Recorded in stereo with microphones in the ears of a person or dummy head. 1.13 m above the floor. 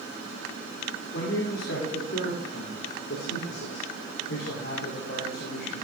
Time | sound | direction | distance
1.1 | a man speaking | 70° left (ahead or behind) | 3 m